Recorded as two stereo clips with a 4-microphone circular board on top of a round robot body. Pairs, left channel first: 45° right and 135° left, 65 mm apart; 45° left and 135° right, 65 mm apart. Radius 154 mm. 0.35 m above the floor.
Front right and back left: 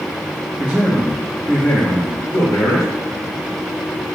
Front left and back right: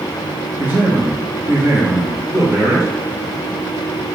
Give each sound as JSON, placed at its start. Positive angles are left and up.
{"t": 0.6, "sound": "a man speaking", "azimuth_deg": 180, "distance_m": 1.1}